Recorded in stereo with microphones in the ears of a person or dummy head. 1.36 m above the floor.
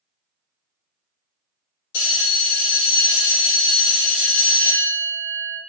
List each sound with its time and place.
1.9 s a bell: 80° left, 1.9 m